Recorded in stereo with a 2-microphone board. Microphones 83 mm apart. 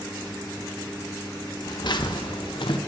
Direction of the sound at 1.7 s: 55° left (ahead or behind).